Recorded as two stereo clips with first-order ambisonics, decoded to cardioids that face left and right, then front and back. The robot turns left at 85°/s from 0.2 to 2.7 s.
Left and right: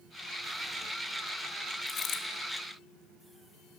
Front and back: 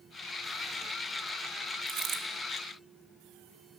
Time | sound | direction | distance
1.9 | a dropped coin | 155° left | 1.8 m